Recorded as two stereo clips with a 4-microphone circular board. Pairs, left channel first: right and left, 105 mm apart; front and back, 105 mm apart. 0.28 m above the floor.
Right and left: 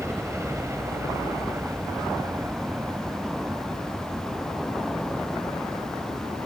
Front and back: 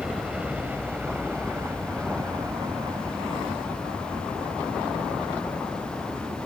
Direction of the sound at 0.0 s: 115° left.